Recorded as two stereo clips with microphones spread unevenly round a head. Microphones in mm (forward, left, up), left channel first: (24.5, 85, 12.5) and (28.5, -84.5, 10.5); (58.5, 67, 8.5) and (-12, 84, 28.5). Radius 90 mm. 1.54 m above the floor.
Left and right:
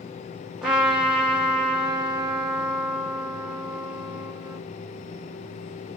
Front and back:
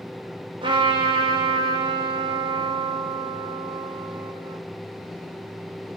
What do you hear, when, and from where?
0.6 s a trumpet: 175° right, 2.5 m